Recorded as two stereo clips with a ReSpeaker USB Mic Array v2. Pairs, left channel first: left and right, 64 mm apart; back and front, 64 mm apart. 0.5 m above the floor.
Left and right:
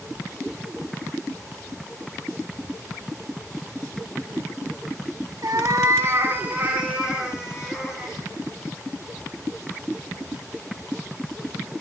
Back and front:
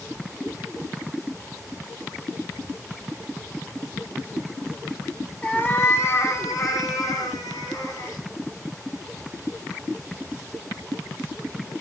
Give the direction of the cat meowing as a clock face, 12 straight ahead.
4 o'clock.